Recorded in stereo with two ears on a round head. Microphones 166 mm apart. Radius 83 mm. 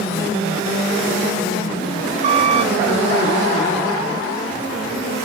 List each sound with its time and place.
2.2 s a squeak: 40° right (ahead or behind), 1.9 m